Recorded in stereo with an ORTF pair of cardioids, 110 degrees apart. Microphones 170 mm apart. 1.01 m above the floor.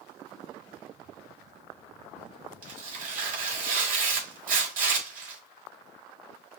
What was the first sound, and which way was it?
Tearing paper, 55° right.